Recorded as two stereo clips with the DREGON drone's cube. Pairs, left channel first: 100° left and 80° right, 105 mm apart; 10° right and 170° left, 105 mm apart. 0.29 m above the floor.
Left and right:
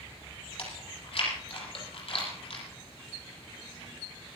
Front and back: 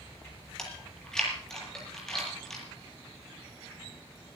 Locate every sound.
0.6 s chewing: 75° left, 7.5 m